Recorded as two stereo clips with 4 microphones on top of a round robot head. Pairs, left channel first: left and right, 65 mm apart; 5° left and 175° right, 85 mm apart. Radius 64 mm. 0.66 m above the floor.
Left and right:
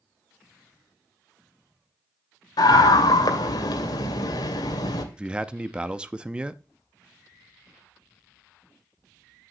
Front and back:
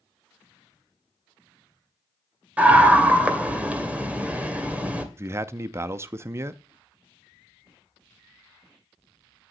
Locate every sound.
2.6 s a scream: 110° left, 2.5 m
5.2 s a man speaking: 150° right, 0.5 m